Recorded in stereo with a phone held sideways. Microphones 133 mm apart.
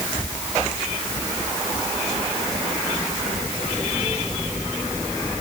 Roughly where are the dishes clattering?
No dishes clattering in this recording.